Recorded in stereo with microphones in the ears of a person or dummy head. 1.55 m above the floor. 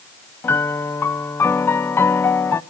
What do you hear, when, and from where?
0.4 s a piano: 10° left (ahead or behind), 0.7 m